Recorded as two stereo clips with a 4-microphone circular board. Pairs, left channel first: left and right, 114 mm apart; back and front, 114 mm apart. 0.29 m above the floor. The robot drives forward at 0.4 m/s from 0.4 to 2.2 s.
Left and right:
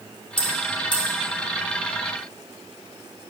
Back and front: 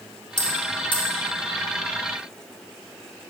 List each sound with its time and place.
0.4 s a bell: 135° left, 2 m; by 1.1 s 140° left, 2.5 m